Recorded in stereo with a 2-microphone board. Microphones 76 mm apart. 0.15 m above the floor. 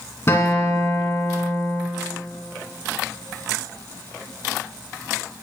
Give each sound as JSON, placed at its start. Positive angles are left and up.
{"t": 0.3, "sound": "a guitar", "side_deg": 35, "distance_m": 1.9}